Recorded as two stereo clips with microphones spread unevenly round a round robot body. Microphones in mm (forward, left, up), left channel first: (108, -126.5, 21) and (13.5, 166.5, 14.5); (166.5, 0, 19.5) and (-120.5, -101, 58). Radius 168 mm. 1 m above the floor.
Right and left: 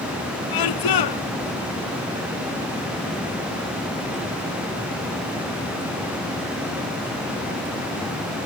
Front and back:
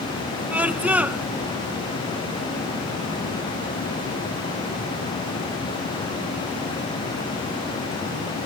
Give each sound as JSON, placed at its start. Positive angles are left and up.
{"t": 0.5, "sound": "a scream", "azimuth_deg": -75}